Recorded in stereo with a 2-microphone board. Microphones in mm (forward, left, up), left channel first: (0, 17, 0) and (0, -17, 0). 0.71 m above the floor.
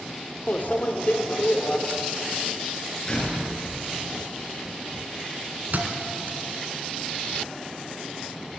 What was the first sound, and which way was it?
A microwave, 60° left (ahead or behind).